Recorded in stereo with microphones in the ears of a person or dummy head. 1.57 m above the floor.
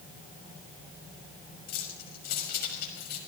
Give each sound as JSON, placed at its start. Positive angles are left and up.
{"t": 1.7, "sound": "keys jangling", "side_deg": 55, "distance_m": 5.5}